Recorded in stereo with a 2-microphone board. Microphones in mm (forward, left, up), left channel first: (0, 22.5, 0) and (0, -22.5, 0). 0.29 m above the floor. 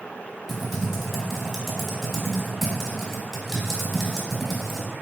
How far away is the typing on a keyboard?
About 0.8 m.